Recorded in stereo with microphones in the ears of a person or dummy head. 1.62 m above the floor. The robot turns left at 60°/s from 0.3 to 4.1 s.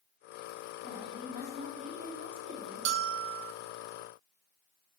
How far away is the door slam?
No door slam in this recording.